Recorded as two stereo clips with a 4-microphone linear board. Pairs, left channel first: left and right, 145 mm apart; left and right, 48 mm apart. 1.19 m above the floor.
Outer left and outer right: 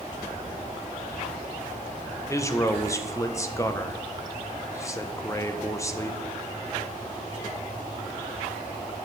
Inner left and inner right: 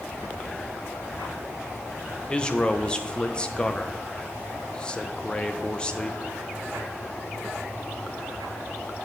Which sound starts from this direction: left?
A man speaking, at 2.3 s.